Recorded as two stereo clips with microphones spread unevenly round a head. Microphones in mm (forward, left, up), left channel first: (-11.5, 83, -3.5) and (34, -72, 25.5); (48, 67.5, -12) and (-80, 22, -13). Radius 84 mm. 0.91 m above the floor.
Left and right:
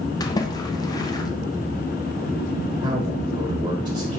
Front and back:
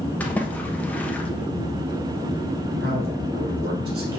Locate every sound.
0.2 s a splash: 90° left, 1.0 m
2.8 s a man speaking: 125° right, 1.5 m